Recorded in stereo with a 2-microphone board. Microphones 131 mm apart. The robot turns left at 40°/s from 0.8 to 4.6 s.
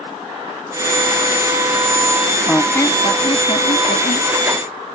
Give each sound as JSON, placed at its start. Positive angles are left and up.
{"t": 2.5, "sound": "a squeak", "azimuth_deg": 175}